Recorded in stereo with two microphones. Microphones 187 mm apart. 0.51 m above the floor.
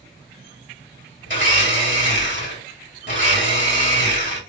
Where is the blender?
70° left (ahead or behind), 3 m.